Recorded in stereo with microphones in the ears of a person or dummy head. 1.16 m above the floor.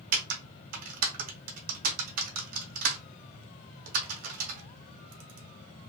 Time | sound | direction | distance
0.1 | typing on a keyboard | 50° right (ahead or behind) | 0.5 m